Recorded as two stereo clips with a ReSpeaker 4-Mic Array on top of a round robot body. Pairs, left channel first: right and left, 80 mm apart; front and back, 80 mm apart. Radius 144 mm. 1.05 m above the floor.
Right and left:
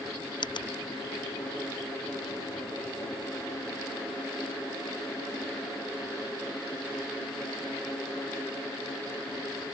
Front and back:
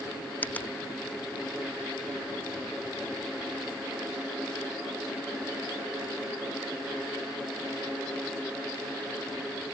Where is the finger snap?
70° right.